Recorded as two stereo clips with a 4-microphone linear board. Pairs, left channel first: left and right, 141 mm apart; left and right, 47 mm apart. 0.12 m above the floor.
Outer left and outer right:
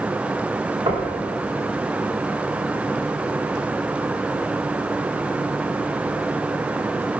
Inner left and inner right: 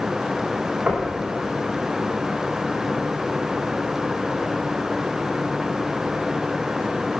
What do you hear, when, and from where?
0.9 s knocking: 40° right (ahead or behind), 4.5 m